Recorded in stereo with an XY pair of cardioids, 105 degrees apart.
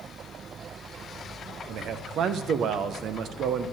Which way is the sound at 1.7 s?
65° right.